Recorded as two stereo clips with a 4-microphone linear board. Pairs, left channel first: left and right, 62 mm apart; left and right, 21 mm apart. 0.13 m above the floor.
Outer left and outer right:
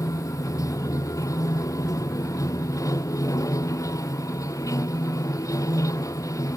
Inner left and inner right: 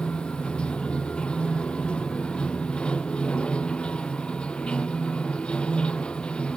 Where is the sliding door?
No sliding door in this recording.